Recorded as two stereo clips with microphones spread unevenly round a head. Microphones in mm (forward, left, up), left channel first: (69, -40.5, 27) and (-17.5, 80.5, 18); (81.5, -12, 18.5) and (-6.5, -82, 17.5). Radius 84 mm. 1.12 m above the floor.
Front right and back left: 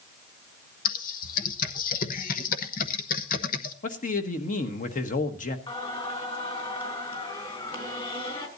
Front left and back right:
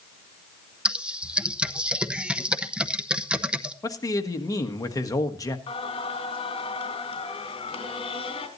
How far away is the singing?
About 3.5 m.